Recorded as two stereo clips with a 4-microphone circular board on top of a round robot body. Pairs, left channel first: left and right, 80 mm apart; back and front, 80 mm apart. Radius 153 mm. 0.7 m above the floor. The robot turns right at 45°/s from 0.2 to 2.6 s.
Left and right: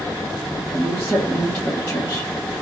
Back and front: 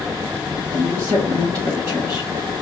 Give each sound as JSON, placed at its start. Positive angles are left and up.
{"t": 0.7, "sound": "a woman speaking", "azimuth_deg": -20, "distance_m": 2.0}